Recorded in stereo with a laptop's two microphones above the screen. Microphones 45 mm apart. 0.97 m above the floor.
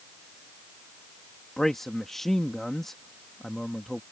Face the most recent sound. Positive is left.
turn(degrees=5)  # may be behind; listen again after turning